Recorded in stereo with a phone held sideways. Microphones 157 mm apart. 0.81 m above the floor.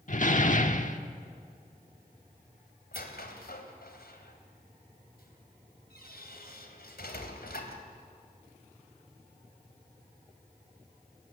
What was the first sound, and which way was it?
A door slam, 55° left (ahead or behind).